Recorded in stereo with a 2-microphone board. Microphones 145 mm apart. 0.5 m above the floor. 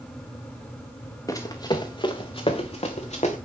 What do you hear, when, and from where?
1.3 s running footsteps: 25° left (ahead or behind), 2 m; by 3.4 s 55° left (ahead or behind), 2.5 m